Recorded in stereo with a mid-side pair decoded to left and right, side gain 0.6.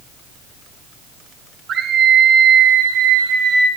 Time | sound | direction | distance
1.7 | a scream | 45° right | 1.8 m